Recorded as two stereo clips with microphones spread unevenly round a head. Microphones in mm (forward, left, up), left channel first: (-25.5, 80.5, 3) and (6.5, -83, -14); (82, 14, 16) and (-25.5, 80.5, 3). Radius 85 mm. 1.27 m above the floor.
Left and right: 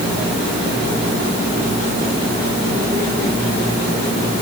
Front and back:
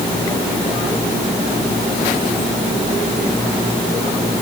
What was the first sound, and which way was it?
Only background noise.